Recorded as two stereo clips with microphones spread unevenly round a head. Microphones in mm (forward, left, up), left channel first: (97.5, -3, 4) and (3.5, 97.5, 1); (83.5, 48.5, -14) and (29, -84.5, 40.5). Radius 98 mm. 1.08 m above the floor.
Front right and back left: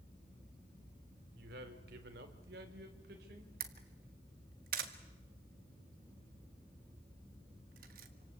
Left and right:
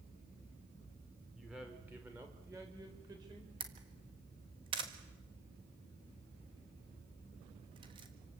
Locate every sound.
1.4 s a man speaking: 160° left, 3 m; by 3.5 s straight behind, 4 m
3.6 s a camera shutter: 175° left, 1.5 m